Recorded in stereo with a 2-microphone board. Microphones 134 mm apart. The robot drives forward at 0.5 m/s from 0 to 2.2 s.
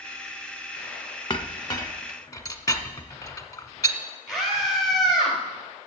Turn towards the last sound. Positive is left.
turn(degrees=-5)  # may be behind; listen again after turning